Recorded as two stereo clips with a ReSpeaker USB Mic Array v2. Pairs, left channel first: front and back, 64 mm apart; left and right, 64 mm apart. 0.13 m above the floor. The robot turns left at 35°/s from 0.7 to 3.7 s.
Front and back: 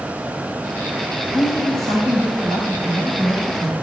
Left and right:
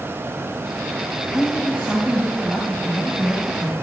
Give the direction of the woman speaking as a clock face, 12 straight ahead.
5 o'clock.